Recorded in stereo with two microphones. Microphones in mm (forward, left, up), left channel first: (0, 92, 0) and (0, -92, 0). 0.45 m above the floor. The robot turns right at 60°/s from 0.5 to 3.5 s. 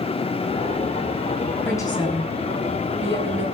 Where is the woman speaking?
10° left, 3.5 m; by 3.5 s 115° left, 3.5 m.